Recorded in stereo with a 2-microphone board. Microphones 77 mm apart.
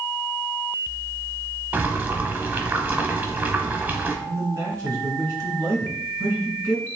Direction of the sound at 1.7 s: 20° right (ahead or behind).